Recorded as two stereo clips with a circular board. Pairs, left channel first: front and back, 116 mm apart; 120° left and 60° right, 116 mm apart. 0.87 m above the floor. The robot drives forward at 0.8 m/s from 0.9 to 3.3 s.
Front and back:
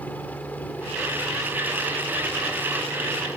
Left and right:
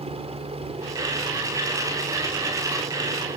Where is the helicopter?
75° right; by 3.4 s 80° right.